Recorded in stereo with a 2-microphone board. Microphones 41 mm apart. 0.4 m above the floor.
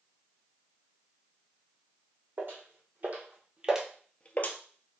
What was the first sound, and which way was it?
Footsteps, 45° right (ahead or behind).